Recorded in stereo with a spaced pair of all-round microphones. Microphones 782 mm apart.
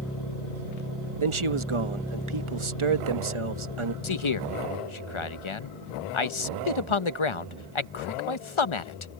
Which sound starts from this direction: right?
A man speaking, at 1.2 s.